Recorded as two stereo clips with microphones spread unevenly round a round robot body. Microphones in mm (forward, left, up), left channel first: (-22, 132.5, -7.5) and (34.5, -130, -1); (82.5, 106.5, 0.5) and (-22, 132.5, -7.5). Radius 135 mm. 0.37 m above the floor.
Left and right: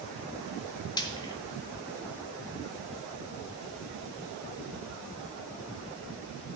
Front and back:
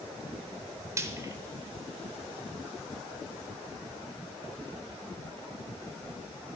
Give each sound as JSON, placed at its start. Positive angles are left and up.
{"t": 1.0, "sound": "frying", "azimuth_deg": 160, "distance_m": 0.8}